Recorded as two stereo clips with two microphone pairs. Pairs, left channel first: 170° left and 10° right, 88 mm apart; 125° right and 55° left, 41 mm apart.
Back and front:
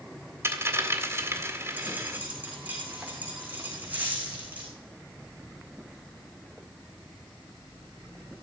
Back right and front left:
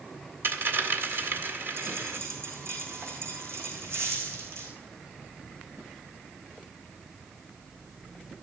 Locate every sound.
0.4 s a dropped coin: 45° left, 1.8 m
1.8 s a dropped coin: 60° left, 4.5 m